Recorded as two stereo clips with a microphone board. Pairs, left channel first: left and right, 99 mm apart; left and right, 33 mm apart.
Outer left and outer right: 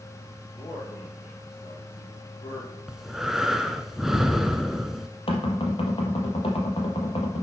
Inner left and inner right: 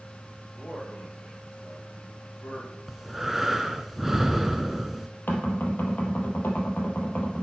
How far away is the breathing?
About 1.1 m.